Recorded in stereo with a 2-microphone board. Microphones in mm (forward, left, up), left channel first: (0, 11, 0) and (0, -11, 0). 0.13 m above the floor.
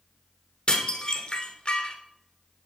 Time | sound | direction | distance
0.7 | dishes clattering | 50° left (ahead or behind) | 1.3 m